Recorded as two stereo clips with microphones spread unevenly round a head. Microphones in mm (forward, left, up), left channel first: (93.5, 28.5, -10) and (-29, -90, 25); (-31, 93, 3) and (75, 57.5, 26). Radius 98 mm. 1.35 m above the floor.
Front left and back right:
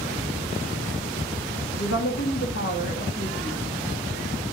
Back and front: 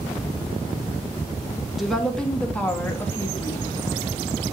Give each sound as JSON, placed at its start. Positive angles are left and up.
{"t": 1.8, "sound": "a woman speaking", "azimuth_deg": 70, "distance_m": 2.5}